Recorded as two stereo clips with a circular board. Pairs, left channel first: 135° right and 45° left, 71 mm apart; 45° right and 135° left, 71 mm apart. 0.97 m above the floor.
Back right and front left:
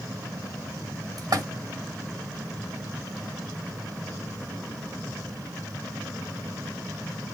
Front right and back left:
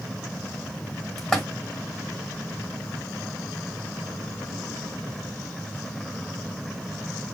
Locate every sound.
1.2 s a splash: 40° left, 1.4 m